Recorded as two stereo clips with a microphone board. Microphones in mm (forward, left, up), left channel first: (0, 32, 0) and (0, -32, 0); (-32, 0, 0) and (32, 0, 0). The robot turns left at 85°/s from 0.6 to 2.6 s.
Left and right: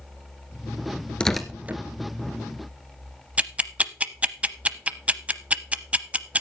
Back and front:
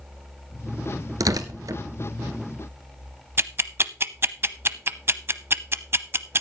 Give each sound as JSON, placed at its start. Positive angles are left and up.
{"t": 1.2, "sound": "tearing paper", "azimuth_deg": 15, "distance_m": 1.2}
{"t": 3.4, "sound": "ticking", "azimuth_deg": -30, "distance_m": 0.6}